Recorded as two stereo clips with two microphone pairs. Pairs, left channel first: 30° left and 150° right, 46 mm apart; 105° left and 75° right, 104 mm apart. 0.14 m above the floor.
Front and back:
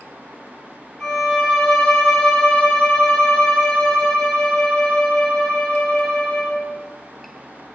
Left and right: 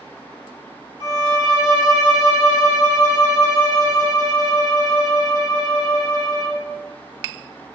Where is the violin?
35° right, 0.6 m.